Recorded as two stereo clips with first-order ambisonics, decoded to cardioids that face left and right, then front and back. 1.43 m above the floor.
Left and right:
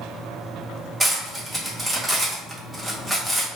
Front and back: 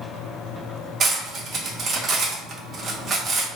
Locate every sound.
1.0 s cutlery clinking: 165° right, 0.6 m